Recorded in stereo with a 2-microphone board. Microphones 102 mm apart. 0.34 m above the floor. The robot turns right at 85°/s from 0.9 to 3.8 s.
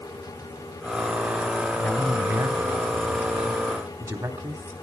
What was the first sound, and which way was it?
A man speaking, 165° left.